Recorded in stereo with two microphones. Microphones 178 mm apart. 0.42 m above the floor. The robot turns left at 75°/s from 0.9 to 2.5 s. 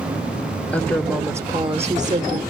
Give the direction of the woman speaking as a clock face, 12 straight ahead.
12 o'clock.